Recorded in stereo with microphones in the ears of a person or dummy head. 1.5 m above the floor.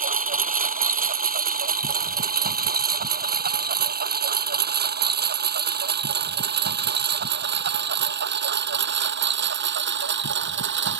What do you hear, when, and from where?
0.0 s a lawn mower: 40° right (ahead or behind); by 11.0 s 65° right (ahead or behind)